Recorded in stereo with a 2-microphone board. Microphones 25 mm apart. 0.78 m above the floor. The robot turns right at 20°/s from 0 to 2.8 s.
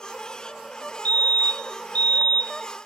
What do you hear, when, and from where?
1.1 s a fire alarm: 80° left, 3 m; by 2.9 s 115° left, 3 m